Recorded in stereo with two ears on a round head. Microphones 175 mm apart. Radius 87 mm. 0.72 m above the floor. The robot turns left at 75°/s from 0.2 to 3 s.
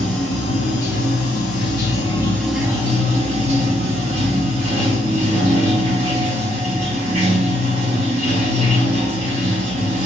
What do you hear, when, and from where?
0.0 s running water: 175° left, 2.5 m; by 10.1 s 35° right, 2.5 m